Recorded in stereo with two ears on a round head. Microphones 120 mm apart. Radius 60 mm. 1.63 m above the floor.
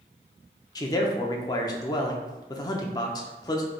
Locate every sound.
0.8 s a man speaking: 30° left (ahead or behind), 0.6 m